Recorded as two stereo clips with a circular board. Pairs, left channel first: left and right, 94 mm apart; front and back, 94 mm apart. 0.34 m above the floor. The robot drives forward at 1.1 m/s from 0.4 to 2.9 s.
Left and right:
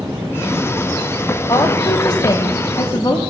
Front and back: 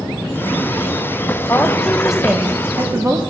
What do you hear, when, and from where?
1.5 s a woman speaking: 60° left, 1.5 m; by 3.2 s 135° left, 1.7 m